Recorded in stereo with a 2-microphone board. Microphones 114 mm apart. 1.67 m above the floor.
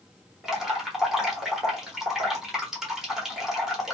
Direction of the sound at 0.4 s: 5° right (ahead or behind).